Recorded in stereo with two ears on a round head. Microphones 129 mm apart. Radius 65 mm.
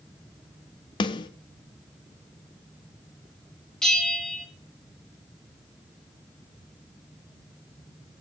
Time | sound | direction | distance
1.0 | a snare drum | 30° left (ahead or behind) | 0.5 m
3.8 | a bell | 5° left (ahead or behind) | 1.4 m